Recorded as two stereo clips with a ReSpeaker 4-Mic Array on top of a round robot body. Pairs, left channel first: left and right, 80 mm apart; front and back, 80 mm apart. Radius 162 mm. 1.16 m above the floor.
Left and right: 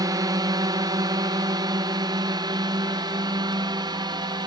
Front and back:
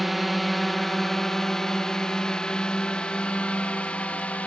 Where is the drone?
90° right; by 4.5 s 70° right.